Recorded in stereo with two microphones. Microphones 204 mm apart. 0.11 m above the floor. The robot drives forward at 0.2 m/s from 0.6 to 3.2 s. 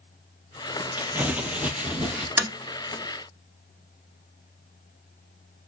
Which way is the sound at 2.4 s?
10° right (ahead or behind).